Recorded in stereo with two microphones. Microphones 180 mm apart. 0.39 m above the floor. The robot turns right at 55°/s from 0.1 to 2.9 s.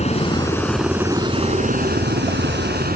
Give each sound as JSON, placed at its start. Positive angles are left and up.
{"t": 0.0, "sound": "a helicopter", "side_deg": 35}